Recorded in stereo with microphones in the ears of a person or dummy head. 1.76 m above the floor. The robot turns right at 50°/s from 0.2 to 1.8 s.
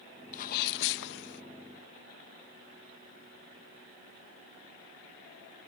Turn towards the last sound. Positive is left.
turn(degrees=120)